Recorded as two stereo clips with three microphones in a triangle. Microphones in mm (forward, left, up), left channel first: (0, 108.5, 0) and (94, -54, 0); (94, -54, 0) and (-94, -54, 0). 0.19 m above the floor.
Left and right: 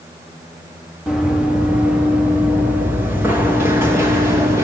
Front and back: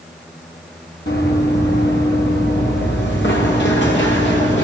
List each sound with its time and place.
1.1 s running footsteps: 30° left, 5 m; by 4.7 s 15° left, 7 m